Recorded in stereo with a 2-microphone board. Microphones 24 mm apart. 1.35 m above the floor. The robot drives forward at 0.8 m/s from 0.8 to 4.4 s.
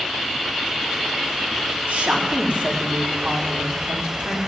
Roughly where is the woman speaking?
Right.